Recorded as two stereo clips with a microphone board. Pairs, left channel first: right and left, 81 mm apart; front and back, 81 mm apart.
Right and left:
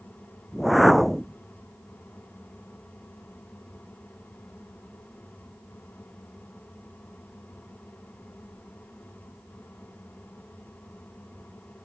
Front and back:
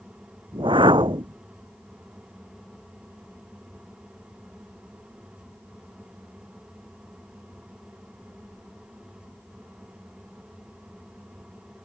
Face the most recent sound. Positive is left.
turn(degrees=180)